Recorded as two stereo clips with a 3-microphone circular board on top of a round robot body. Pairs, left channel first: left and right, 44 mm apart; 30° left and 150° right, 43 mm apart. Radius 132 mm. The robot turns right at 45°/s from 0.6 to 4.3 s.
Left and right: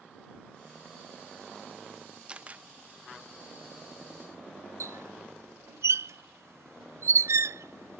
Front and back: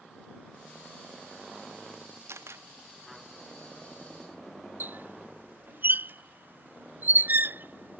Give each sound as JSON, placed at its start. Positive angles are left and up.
{"t": 2.3, "sound": "a camera shutter", "azimuth_deg": -160}
{"t": 4.8, "sound": "a squeak", "azimuth_deg": -105}